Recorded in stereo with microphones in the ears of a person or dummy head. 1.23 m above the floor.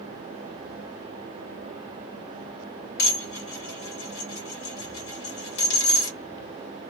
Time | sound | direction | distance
3.0 | dishes clattering | 60° left (ahead or behind) | 1.5 m